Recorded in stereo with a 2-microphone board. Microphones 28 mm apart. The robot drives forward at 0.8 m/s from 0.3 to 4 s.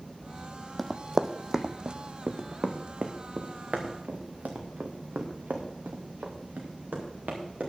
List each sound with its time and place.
0.8 s running footsteps: 5° left (ahead or behind), 0.8 m; by 7.7 s 75° right (ahead or behind), 4 m